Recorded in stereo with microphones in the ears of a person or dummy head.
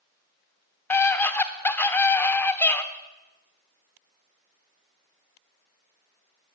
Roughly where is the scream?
Centre.